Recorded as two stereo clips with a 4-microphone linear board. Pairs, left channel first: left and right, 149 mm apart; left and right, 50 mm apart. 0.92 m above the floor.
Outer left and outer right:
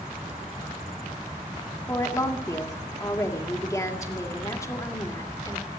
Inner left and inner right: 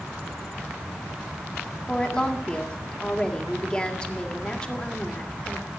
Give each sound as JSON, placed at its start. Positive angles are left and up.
{"t": 1.9, "sound": "a woman speaking", "side_deg": 20, "distance_m": 1.9}